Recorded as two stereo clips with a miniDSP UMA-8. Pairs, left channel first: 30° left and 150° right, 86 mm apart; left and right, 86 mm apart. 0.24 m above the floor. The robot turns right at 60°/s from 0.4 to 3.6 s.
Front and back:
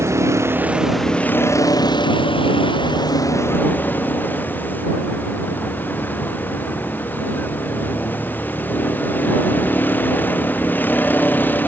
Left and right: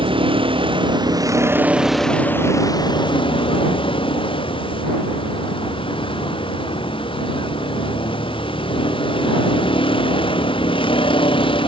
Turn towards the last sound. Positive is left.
turn(degrees=100)